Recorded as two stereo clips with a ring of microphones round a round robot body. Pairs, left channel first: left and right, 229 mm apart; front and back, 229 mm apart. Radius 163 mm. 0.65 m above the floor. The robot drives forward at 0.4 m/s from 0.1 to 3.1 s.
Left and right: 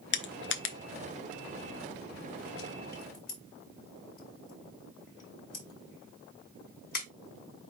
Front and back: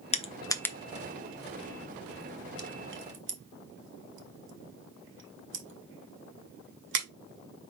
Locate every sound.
0.1 s crushing: 60° left, 0.7 m; by 7.1 s 150° left, 1.1 m